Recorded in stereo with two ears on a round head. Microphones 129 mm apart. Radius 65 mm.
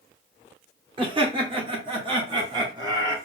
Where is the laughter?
35° right (ahead or behind), 1.3 m; by 3.2 s 30° right (ahead or behind), 1.7 m.